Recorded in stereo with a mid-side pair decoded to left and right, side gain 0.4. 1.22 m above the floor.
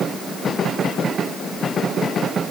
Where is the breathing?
I don't hear breathing.